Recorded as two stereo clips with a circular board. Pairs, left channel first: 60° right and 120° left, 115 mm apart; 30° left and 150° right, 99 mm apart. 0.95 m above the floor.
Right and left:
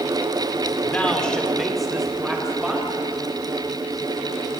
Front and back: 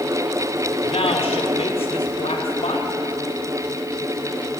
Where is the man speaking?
15° left, 2.5 m; by 2.9 s 35° left, 5 m.